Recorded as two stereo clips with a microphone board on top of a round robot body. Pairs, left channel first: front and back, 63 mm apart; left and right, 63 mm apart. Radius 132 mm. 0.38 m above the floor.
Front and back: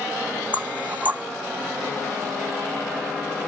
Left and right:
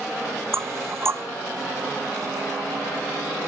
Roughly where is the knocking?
Behind right.